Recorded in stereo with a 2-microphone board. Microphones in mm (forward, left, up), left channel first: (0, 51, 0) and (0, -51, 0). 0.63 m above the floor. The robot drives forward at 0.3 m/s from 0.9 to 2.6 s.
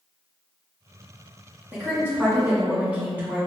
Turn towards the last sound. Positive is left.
turn(degrees=-15)  # may be behind; listen again after turning